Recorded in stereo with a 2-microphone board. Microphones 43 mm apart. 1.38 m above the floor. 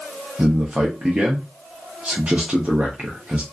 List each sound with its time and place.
0.4 s a man speaking: 25° right (ahead or behind), 0.7 m